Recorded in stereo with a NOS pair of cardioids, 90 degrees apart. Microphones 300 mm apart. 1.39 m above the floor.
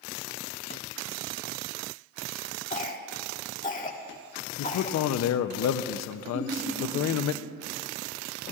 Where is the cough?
25° left, 1.6 m.